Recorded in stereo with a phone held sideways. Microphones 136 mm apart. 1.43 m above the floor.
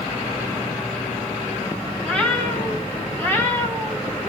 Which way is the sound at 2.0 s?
10° left (ahead or behind).